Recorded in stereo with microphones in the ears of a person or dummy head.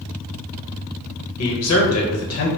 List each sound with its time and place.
1.4 s a man speaking: 75° left (ahead or behind), 1.0 m